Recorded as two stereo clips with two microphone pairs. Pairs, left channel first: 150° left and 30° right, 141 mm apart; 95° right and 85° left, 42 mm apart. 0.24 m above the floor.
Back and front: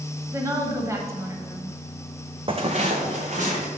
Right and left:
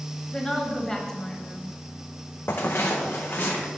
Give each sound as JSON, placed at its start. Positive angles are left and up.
{"t": 0.3, "sound": "a woman speaking", "azimuth_deg": -40, "distance_m": 0.9}
{"t": 2.5, "sound": "footsteps", "azimuth_deg": -80, "distance_m": 0.7}